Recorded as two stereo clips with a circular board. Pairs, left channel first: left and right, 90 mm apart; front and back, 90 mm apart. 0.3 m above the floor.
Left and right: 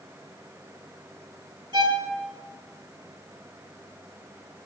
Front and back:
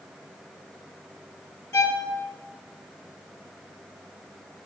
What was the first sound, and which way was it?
A violin, 60° right.